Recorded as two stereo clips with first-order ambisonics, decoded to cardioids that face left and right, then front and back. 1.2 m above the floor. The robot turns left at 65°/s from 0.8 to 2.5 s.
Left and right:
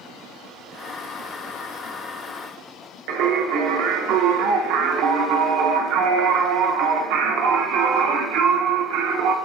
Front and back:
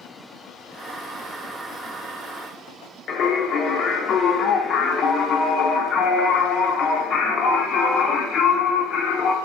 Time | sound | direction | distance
3.1 | singing | 65° right | 0.5 m